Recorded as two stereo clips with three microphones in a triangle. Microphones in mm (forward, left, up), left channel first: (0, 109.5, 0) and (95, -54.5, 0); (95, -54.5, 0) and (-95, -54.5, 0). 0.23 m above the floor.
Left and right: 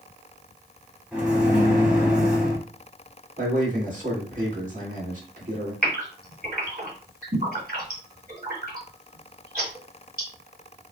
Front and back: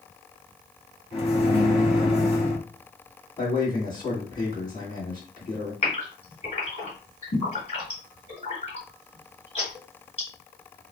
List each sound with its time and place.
1.1 s a microwave: 20° left, 1.1 m
3.4 s a man speaking: 60° right, 2 m
5.8 s a gasp: 45° right, 2.5 m